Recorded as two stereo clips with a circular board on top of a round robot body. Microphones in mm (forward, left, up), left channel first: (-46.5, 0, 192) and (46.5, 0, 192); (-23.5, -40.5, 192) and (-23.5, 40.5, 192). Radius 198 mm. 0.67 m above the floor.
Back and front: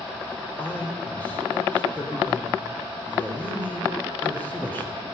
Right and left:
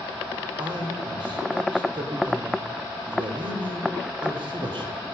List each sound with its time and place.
0.6 s a man speaking: 110° left, 3 m